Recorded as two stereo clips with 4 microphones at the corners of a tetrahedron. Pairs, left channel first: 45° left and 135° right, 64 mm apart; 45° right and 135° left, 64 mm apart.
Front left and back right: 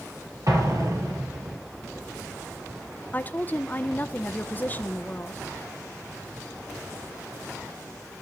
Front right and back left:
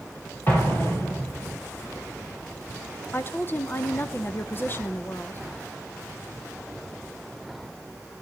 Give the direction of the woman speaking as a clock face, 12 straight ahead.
12 o'clock.